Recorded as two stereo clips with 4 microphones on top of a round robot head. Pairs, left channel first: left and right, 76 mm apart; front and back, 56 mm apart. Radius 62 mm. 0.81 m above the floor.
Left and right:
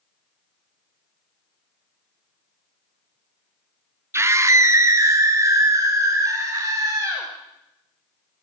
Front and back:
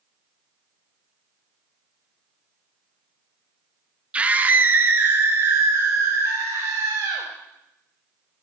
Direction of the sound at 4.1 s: 125° right.